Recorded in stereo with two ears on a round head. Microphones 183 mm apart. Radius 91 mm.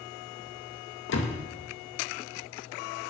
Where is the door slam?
65° left (ahead or behind), 2 m.